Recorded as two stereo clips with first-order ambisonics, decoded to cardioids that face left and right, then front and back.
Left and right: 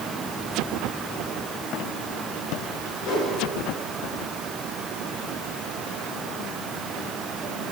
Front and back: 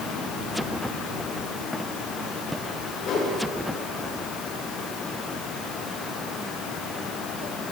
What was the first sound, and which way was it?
A whoosh, 55° left.